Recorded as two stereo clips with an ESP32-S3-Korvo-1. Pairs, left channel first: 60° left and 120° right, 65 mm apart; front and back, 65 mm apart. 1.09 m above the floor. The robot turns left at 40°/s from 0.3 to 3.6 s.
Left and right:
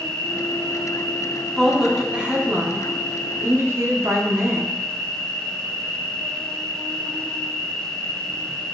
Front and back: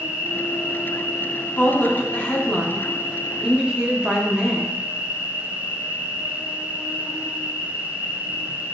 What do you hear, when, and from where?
0.0 s an insect: 100° left, 1.1 m; by 8.8 s 35° right, 1.1 m
1.6 s a woman speaking: 30° right, 0.6 m; by 4.8 s 115° right, 0.6 m